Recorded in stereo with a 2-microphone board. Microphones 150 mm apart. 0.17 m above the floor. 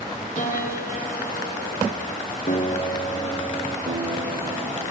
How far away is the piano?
About 5.5 m.